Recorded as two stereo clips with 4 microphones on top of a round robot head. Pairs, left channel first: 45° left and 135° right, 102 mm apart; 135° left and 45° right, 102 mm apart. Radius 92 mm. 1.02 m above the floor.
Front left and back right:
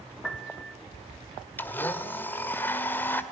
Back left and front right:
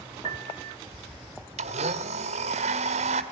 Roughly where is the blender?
Ahead right.